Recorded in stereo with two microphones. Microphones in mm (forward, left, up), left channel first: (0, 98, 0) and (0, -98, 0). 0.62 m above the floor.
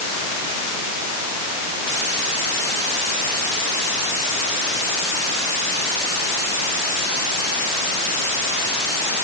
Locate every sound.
Only background noise.